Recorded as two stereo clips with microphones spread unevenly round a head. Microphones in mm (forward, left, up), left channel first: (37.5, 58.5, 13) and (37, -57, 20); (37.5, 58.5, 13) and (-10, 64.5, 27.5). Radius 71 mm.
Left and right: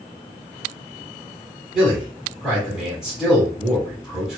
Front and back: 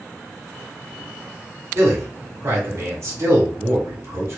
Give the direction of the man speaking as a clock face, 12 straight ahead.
6 o'clock.